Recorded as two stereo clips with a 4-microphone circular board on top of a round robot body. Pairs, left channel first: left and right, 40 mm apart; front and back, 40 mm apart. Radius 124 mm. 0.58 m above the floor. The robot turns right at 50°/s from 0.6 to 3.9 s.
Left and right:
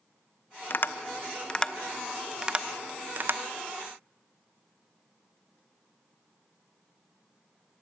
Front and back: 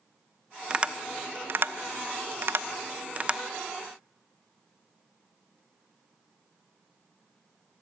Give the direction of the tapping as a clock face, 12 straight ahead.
8 o'clock.